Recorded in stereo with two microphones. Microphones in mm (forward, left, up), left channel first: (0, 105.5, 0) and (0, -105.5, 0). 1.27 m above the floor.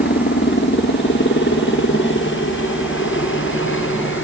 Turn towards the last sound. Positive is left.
turn(degrees=75)  # may be behind; listen again after turning